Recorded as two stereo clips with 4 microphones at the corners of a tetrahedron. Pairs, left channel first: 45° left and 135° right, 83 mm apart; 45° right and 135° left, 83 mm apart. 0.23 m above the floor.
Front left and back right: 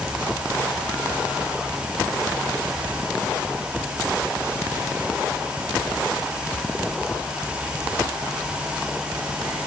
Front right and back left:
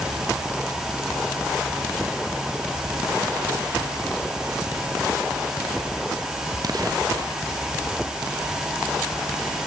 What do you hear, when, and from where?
Only background noise.